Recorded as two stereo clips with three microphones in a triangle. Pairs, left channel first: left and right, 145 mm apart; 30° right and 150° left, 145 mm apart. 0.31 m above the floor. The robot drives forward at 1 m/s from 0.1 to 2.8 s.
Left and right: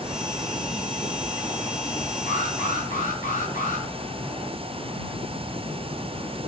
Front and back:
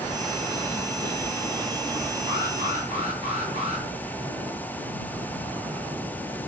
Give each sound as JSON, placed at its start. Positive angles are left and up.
{"t": 2.3, "sound": "an alarm", "azimuth_deg": 105, "distance_m": 8.5}